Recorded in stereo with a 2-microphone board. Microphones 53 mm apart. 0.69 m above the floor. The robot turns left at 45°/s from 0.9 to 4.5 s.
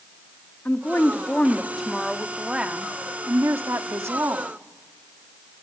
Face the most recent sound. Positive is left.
turn(degrees=-110)